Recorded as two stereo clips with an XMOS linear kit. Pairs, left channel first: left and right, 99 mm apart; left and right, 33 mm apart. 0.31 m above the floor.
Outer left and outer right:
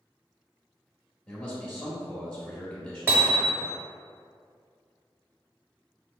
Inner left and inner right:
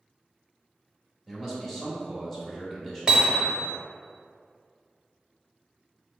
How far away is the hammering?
About 0.6 m.